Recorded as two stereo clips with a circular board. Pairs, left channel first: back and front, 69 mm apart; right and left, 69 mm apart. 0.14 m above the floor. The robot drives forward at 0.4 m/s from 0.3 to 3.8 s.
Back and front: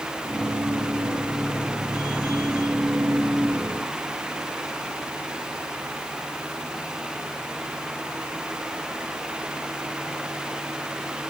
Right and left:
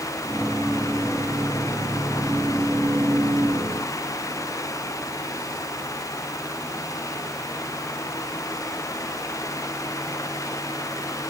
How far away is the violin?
I don't hear a violin.